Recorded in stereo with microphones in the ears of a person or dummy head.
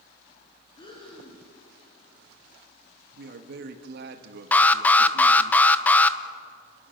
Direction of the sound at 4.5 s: 10° left (ahead or behind).